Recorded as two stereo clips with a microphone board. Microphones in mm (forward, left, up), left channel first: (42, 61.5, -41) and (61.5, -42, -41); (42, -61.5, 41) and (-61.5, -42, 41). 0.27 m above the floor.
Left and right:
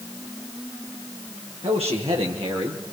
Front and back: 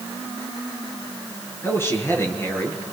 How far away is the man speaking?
About 5.5 m.